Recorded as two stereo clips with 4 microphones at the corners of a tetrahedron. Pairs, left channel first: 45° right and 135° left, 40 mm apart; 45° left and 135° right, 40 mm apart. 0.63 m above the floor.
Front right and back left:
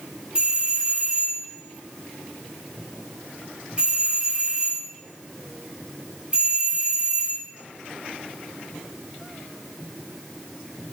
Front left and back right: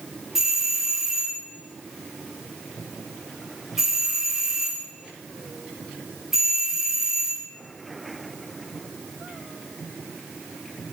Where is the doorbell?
160° left, 1.5 m.